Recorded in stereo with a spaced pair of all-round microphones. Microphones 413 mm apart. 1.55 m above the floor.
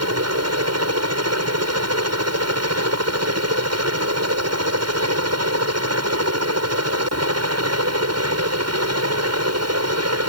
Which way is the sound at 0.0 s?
40° right (ahead or behind).